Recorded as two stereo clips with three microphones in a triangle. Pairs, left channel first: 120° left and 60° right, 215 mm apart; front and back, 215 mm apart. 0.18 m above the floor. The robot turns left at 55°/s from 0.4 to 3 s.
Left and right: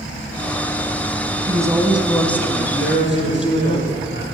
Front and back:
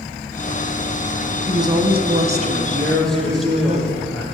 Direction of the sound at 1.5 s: 115° right.